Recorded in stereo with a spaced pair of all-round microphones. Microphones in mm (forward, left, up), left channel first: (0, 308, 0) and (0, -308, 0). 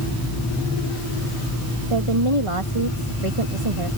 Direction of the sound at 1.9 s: 55° right (ahead or behind).